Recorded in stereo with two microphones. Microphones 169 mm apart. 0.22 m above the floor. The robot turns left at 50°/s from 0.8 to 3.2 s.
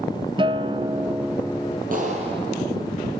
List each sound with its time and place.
0.4 s a guitar: 150° right, 0.6 m; by 1.8 s 160° left, 0.6 m
1.9 s a clap: 130° right, 6.5 m; by 2.6 s 165° right, 6.5 m